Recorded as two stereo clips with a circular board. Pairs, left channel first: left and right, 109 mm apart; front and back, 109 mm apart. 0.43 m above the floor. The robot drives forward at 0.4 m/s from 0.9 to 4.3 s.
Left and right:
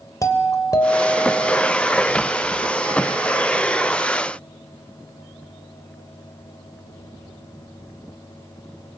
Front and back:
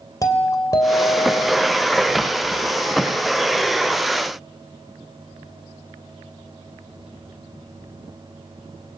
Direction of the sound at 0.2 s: 45° left.